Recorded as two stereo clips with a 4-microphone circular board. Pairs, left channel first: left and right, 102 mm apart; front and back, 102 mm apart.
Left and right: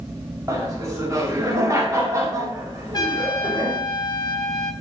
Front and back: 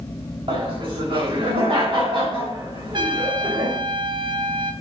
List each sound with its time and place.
0.5 s laughter: 150° right, 3.5 m
2.9 s a trumpet: 140° left, 0.9 m